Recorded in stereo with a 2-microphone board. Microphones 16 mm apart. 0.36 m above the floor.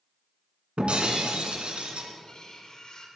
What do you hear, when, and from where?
0.8 s breaking glass: 75° right (ahead or behind), 1.7 m
2.2 s cutlery clinking: 45° left (ahead or behind), 1.7 m